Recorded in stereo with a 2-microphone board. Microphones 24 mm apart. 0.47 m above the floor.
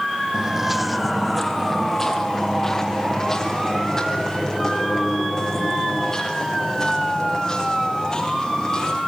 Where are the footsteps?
30° right (ahead or behind), 0.7 m; by 9.0 s 30° left (ahead or behind), 8.5 m.